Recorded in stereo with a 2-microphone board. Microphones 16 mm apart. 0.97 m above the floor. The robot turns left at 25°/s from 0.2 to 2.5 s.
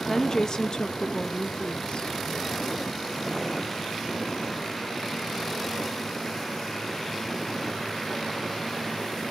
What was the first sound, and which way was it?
A woman speaking, 140° left.